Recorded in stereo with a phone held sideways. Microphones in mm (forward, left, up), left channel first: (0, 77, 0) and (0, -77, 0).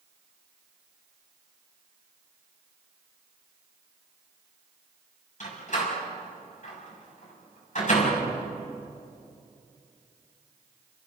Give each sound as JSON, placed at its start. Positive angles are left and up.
{"t": 5.4, "sound": "a door slam", "side_deg": 55, "distance_m": 6.5}